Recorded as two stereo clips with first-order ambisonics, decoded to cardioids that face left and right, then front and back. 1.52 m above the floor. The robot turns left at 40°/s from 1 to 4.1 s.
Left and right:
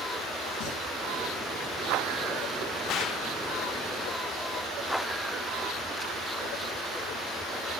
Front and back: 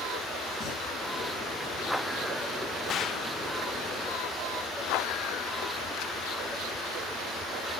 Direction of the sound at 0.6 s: 65° left.